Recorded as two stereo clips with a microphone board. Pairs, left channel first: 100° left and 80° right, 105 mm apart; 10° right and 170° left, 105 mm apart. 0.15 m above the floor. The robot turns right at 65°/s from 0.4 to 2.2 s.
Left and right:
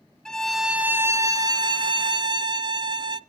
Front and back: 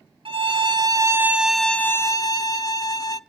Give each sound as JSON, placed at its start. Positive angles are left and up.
{"t": 0.2, "sound": "a violin", "azimuth_deg": -175, "distance_m": 0.6}